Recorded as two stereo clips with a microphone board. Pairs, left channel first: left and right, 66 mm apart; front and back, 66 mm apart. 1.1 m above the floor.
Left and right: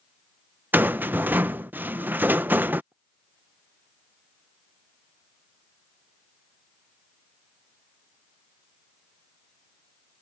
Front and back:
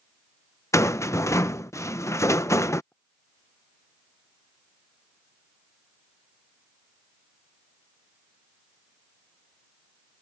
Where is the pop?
65° right.